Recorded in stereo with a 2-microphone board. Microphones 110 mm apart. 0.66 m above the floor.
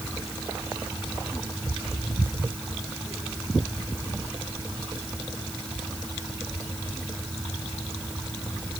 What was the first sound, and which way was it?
Only background noise.